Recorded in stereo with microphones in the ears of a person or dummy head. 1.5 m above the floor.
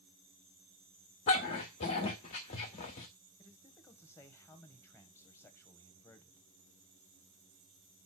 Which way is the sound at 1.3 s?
20° left (ahead or behind).